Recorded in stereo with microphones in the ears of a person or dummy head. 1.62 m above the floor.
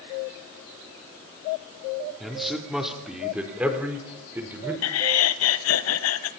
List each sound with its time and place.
2.2 s a man speaking: centre (ahead or behind), 3.5 m; by 4.7 s 10° right (ahead or behind), 5 m
4.8 s laughter: 85° left, 1.3 m